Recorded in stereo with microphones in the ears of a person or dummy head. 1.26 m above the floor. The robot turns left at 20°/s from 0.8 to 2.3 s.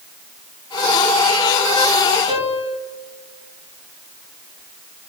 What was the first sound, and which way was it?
A piano, 25° right (ahead or behind).